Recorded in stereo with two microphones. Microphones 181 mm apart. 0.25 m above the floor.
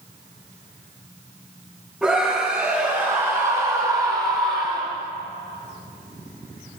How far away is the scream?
About 7.5 m.